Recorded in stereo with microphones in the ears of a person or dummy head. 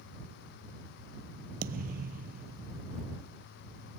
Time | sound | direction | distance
1.6 | a thud | 50° right (ahead or behind) | ?